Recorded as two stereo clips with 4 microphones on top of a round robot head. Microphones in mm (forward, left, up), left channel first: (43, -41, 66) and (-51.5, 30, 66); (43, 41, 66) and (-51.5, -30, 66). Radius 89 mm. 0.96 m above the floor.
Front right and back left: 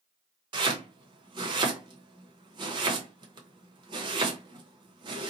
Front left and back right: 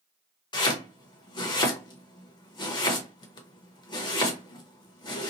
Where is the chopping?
90° left, 0.8 m.